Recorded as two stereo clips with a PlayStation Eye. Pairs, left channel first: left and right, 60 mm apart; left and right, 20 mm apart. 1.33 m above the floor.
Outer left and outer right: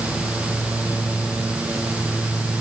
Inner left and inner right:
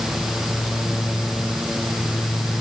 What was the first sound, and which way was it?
Only background noise.